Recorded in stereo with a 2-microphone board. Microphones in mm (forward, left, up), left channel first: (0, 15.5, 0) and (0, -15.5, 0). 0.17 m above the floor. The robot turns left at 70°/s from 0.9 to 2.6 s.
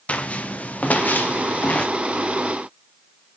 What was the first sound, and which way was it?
Footsteps, 50° left (ahead or behind).